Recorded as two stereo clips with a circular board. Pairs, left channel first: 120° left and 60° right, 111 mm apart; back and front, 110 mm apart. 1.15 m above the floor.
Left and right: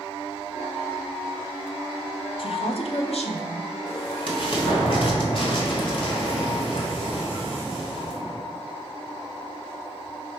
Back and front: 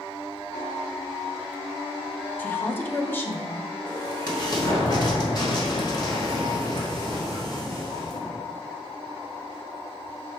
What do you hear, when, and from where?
2.4 s a woman speaking: 110° left, 0.6 m
3.9 s an explosion: 140° left, 1.4 m